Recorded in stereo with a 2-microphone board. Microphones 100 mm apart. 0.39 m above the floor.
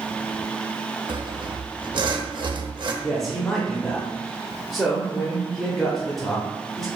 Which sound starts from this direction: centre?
A man speaking, at 3.0 s.